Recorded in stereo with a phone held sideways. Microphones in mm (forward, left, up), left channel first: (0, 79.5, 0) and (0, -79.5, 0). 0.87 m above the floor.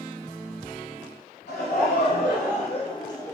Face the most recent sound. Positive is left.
turn(degrees=15)  # may be behind; listen again after turning